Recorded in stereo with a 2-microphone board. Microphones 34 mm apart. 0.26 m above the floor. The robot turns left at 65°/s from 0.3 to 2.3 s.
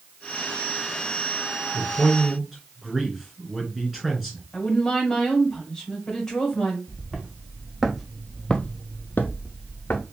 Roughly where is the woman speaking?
Centre.